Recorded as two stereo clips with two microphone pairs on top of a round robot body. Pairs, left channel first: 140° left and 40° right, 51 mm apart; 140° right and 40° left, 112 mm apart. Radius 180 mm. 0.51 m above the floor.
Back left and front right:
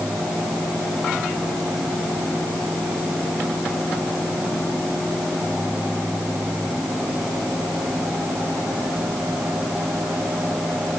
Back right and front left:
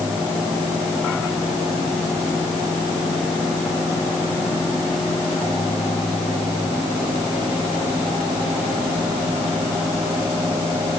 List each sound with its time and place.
Only background noise.